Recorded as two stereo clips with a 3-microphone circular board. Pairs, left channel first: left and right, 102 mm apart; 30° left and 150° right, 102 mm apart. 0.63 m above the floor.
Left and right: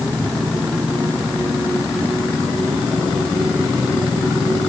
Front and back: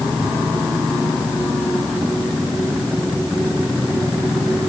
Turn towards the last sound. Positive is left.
No sound to turn to.